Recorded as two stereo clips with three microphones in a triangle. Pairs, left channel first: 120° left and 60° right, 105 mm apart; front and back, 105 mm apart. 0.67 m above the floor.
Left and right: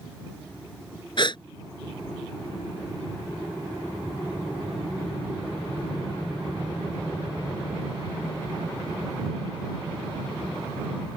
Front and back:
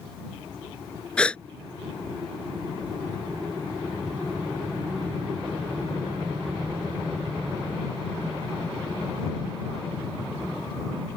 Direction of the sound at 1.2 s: 80° left.